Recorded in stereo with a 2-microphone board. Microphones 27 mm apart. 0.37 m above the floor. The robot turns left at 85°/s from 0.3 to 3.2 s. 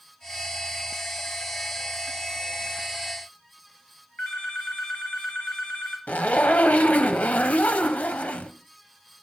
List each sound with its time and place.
4.2 s a phone ringing: 70° left (ahead or behind), 2.5 m
6.1 s a zipper: 65° left (ahead or behind), 0.9 m